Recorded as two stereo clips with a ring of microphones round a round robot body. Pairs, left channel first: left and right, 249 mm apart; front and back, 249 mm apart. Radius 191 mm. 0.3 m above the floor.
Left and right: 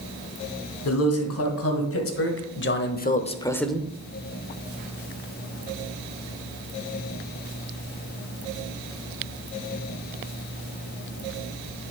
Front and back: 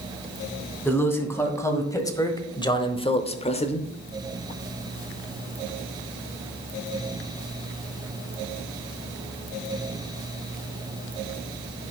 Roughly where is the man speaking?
Left.